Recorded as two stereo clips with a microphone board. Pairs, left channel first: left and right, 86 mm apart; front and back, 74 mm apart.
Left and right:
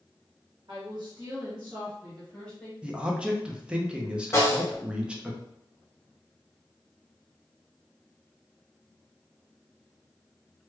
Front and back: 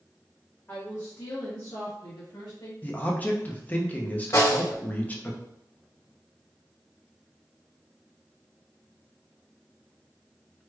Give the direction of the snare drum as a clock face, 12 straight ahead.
11 o'clock.